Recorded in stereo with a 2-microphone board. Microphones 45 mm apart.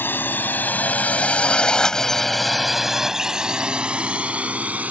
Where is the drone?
55° left (ahead or behind); by 4.9 s 35° right (ahead or behind).